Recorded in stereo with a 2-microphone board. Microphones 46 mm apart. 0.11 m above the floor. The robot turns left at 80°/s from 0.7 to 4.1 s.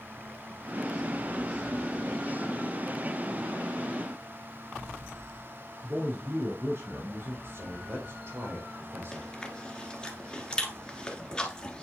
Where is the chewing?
15° left (ahead or behind), 1.5 m.